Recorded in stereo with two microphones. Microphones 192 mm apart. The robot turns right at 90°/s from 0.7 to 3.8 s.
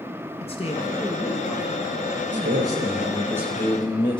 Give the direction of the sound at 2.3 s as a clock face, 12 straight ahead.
4 o'clock.